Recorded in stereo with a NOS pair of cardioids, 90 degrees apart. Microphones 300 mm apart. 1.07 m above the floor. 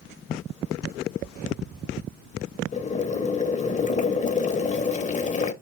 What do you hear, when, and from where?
2.7 s boiling: 25° left, 0.5 m